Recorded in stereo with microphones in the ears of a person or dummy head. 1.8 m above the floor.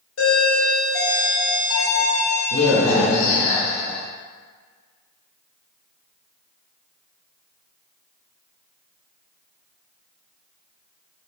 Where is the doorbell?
85° left, 1.0 m.